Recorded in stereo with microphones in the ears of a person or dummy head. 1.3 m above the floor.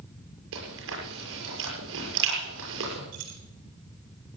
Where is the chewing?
80° right, 7 m.